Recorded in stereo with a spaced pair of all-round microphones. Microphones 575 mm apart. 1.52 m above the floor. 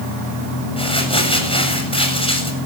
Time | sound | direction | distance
0.8 | crumpling | 10° left (ahead or behind) | 7.5 m